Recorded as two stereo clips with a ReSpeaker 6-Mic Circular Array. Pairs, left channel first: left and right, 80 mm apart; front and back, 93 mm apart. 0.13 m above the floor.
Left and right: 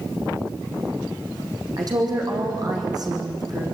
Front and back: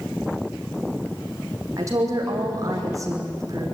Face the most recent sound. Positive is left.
turn(degrees=-125)